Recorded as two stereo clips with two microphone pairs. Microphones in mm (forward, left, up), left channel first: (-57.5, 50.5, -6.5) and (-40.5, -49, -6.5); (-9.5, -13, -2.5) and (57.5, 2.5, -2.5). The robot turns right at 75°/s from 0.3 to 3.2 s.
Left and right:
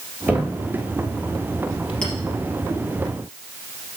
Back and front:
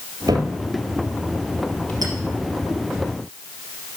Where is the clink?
20° left, 3 m; by 2.1 s 30° left, 3 m.